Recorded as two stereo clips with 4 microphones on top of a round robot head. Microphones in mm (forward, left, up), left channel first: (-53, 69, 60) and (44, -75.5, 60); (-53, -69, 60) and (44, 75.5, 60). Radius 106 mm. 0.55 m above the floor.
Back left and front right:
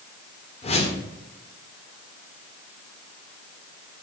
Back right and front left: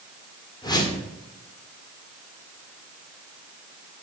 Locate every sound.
0.6 s a whoosh: 170° left, 1.9 m